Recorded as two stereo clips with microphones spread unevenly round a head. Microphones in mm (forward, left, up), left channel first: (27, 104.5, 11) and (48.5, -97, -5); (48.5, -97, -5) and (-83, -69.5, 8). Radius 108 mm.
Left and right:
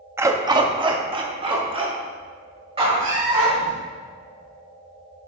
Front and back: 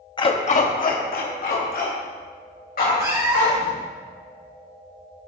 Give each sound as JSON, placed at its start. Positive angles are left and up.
{"t": 0.2, "sound": "a dog barking", "azimuth_deg": -10, "distance_m": 0.7}
{"t": 3.0, "sound": "a cat meowing", "azimuth_deg": -125, "distance_m": 4.0}